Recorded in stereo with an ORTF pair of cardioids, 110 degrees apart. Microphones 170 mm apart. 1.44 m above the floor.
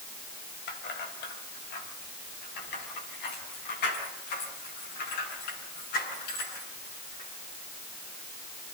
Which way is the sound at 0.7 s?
70° left.